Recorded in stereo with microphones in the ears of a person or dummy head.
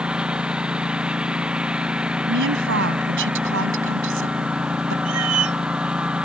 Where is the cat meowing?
75° right (ahead or behind).